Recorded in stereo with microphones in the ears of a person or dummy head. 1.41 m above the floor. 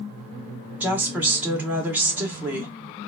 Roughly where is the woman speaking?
Centre.